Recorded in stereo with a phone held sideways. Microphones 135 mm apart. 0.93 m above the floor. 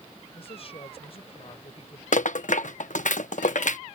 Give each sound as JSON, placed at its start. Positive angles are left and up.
{"t": 0.3, "sound": "a woman speaking", "side_deg": 45}
{"t": 2.1, "sound": "a rattle", "side_deg": 70}